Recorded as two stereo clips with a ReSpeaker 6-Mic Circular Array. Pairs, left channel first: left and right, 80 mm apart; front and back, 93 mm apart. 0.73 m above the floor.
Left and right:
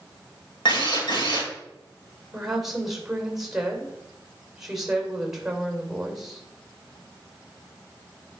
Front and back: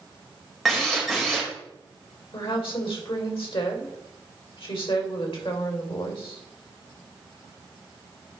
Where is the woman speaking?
5° right, 2.5 m.